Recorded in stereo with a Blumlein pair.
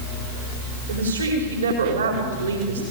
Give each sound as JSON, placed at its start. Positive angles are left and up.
{"t": 0.9, "sound": "a woman speaking", "azimuth_deg": -70, "distance_m": 4.5}